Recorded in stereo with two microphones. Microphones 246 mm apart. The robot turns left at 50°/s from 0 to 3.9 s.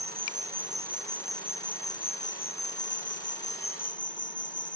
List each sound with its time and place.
0.0 s an insect: 115° right; by 4.8 s 50° left